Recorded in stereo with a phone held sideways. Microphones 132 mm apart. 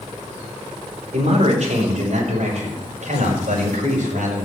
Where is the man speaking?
55° right (ahead or behind), 4.5 m; by 4.5 s 75° right (ahead or behind), 6 m.